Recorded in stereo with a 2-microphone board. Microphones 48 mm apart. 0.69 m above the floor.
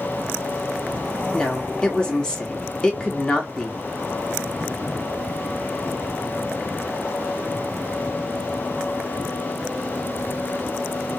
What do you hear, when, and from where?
1.3 s a woman speaking: 15° left (ahead or behind), 1.4 m